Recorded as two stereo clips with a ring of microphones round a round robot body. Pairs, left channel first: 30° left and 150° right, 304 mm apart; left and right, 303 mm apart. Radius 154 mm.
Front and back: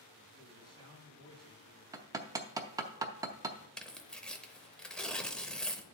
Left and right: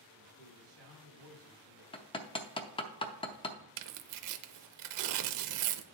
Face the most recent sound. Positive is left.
turn(degrees=-55)